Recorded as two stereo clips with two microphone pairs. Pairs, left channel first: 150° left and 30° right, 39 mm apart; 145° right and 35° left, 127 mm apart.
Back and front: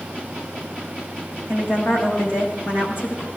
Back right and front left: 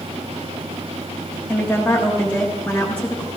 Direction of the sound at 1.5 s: 135° left.